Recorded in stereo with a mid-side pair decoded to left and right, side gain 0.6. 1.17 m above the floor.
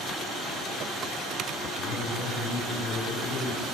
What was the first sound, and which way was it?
A man speaking, 70° left.